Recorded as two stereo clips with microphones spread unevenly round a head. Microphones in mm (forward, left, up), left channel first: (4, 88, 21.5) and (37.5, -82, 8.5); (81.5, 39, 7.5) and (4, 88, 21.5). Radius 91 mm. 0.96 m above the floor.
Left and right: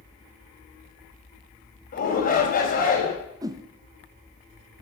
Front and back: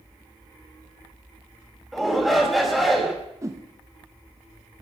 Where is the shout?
60° left, 4.5 m.